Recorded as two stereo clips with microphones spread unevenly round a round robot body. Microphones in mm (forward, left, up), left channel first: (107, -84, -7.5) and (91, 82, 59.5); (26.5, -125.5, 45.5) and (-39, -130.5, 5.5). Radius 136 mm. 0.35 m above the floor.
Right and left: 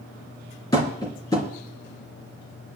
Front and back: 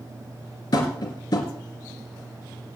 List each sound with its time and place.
0.7 s tapping: 20° right, 3.5 m